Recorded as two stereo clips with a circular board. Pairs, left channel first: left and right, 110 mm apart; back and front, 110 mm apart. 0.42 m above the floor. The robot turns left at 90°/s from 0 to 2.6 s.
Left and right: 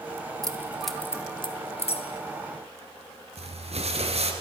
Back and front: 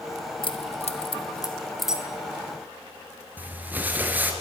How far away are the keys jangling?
About 1.9 m.